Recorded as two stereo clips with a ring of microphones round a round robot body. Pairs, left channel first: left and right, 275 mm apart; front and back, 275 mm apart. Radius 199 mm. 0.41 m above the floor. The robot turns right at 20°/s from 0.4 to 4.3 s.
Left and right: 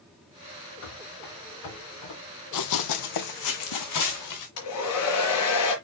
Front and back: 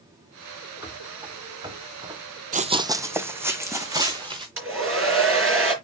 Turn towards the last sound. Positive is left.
turn(degrees=140)